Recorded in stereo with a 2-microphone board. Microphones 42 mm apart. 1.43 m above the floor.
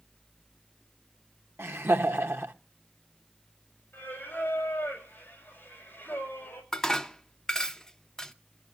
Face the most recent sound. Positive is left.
turn(degrees=10)  # may be behind; listen again after turning